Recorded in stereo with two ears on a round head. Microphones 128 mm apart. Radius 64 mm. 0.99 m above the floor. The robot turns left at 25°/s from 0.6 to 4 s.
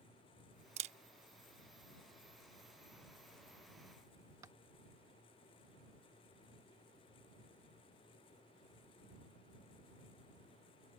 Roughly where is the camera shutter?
Right.